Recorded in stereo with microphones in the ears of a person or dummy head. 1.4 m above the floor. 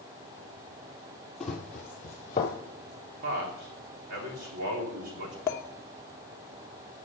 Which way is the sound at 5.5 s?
25° left (ahead or behind).